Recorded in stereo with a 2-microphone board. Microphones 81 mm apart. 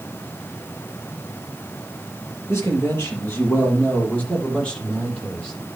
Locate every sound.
2.5 s a man speaking: 35° left (ahead or behind), 6 m; by 5.5 s 10° left (ahead or behind), 8 m